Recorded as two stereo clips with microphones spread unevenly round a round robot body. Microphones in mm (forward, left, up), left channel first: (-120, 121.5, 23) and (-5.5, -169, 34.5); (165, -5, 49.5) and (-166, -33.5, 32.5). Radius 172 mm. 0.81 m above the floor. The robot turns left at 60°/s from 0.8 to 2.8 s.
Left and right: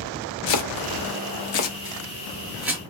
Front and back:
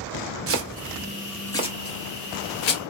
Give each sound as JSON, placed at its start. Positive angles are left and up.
{"t": 0.5, "sound": "chopping", "azimuth_deg": 130, "distance_m": 0.8}